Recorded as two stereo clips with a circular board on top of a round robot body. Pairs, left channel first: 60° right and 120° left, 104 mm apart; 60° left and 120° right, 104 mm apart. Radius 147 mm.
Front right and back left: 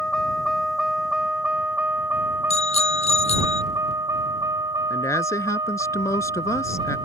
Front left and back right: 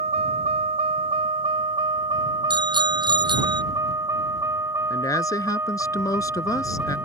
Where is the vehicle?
145° right; by 7.1 s 170° left.